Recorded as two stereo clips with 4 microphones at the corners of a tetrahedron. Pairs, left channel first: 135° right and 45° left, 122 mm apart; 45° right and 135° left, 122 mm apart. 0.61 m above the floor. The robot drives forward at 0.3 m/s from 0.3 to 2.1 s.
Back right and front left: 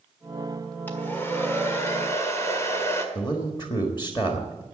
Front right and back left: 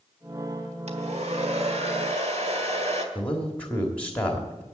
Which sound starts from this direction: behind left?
A hair dryer, at 0.9 s.